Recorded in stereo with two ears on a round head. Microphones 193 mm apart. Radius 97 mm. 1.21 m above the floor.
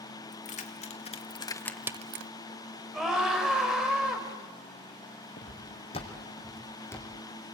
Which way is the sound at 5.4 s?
40° left (ahead or behind).